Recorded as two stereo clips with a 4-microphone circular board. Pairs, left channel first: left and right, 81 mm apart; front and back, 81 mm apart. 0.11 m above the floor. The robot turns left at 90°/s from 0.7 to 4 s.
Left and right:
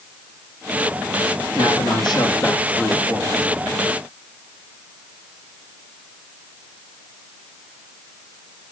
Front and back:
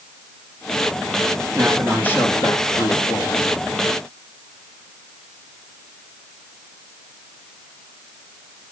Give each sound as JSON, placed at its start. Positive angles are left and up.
{"t": 1.6, "sound": "a man speaking", "azimuth_deg": 115, "distance_m": 5.5}